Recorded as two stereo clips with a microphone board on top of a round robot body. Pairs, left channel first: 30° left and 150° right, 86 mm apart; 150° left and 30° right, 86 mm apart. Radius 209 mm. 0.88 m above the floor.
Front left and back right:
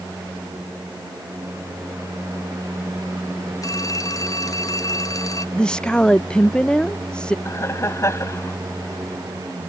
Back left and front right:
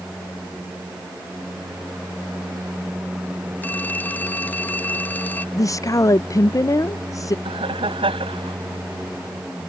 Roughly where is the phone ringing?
Left.